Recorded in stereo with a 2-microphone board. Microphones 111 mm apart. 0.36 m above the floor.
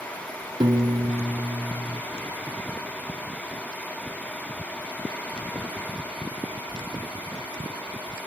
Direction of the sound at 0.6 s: 40° right (ahead or behind).